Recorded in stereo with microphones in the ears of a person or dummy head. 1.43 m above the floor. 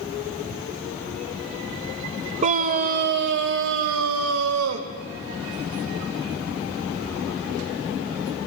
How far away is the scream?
About 1.1 m.